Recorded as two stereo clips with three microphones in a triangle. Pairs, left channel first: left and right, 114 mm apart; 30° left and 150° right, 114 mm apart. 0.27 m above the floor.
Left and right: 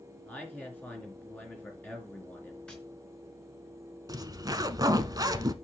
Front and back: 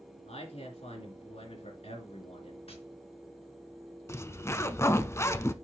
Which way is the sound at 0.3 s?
15° left.